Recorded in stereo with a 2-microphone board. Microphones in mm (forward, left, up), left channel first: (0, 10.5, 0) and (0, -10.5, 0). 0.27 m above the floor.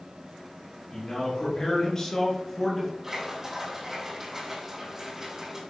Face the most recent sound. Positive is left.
turn(degrees=-15)  # may be behind; listen again after turning